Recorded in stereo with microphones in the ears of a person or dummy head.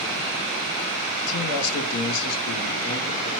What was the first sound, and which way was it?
A man speaking, 80° left.